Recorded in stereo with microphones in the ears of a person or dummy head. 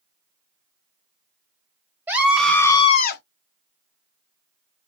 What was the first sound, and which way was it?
A scream, 15° right (ahead or behind).